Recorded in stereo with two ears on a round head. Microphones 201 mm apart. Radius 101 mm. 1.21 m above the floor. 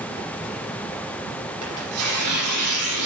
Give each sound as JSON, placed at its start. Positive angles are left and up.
{"t": 1.6, "sound": "tearing paper", "side_deg": -75, "distance_m": 7.0}